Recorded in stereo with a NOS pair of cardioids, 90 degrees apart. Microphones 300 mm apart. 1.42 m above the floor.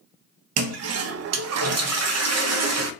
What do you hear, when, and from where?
0.6 s a toilet flushing: 60° right, 0.5 m